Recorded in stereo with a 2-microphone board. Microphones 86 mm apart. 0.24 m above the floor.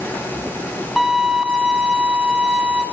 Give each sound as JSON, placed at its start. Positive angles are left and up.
{"t": 1.0, "sound": "a violin", "side_deg": -5, "distance_m": 2.0}